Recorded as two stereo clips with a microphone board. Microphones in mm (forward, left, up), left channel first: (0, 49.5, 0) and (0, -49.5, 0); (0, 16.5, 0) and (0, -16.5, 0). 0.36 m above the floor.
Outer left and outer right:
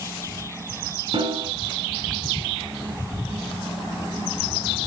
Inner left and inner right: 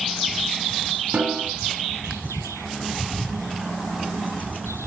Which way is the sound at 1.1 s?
65° right (ahead or behind).